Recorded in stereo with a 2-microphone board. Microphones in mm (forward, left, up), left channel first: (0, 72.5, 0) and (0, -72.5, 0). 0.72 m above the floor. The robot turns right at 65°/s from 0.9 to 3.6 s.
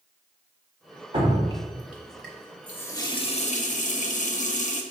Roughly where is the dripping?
Right.